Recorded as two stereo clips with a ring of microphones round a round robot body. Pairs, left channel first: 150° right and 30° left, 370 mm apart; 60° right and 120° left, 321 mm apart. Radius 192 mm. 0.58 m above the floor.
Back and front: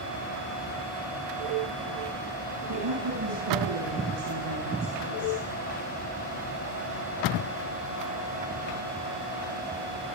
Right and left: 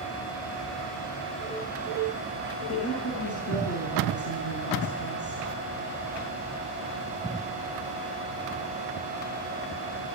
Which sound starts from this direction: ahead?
A woman speaking, at 2.7 s.